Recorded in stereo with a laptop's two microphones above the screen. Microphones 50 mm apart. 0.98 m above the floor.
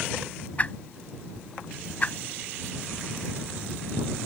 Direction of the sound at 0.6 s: 30° left (ahead or behind).